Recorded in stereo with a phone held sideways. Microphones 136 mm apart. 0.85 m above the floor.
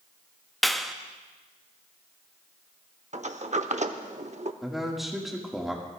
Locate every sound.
0.6 s a clap: centre (ahead or behind), 0.5 m
3.1 s a sliding door: 60° right (ahead or behind), 0.7 m
4.6 s a man speaking: centre (ahead or behind), 1.9 m